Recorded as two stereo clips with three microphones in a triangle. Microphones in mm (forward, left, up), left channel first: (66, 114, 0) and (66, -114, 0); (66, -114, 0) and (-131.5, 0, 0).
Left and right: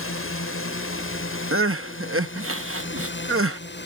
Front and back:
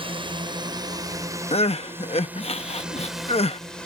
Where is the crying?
95° right.